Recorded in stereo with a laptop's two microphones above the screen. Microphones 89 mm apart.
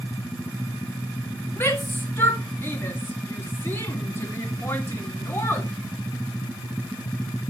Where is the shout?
25° left (ahead or behind), 1.4 m.